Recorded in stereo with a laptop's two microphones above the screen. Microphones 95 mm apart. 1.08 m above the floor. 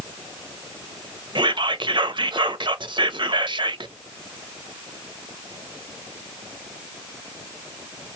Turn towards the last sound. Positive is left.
turn(degrees=-55)  # may be behind; listen again after turning